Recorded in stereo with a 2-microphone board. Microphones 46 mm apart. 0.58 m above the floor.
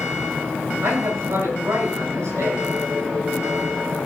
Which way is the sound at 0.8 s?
85° right.